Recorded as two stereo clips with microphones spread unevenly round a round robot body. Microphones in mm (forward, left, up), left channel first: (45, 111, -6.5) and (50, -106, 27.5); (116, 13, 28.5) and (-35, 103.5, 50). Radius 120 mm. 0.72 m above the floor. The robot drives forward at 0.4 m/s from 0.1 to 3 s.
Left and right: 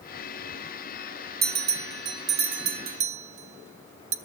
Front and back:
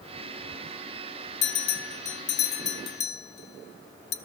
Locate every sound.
1.4 s a bell: 40° right, 1.4 m; by 4.2 s 65° right, 1.0 m